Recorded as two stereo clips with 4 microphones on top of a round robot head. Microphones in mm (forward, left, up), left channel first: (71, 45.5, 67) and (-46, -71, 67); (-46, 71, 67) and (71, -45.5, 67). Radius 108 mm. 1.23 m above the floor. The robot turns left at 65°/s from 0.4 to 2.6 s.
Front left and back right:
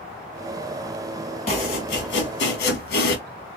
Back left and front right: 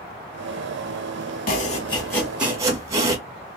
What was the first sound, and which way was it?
Chopping, 100° left.